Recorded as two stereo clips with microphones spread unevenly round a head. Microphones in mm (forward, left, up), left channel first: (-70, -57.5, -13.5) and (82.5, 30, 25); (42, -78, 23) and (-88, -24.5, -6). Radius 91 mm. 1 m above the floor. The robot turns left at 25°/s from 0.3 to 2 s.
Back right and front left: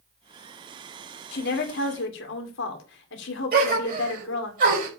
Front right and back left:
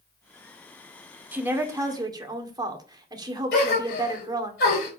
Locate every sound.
1.3 s a woman speaking: 125° right, 2.5 m; by 4.5 s 140° right, 2.5 m
3.5 s a gasp: 10° right, 4.5 m